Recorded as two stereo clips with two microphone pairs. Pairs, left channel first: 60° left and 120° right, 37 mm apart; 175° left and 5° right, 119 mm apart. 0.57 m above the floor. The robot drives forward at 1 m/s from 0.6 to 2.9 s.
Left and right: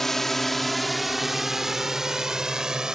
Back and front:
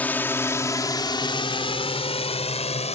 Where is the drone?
125° left; by 3.0 s 170° left.